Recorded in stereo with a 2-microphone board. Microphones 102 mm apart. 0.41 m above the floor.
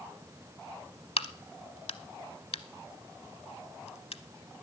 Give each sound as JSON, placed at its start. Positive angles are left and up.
{"t": 1.2, "sound": "a crack", "side_deg": 80, "distance_m": 0.7}